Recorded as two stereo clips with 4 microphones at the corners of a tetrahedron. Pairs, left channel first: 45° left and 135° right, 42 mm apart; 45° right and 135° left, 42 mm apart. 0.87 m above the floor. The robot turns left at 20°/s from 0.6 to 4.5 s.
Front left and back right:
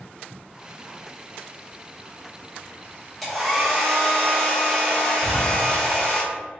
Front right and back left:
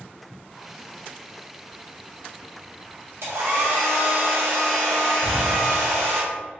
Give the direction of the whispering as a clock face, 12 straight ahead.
5 o'clock.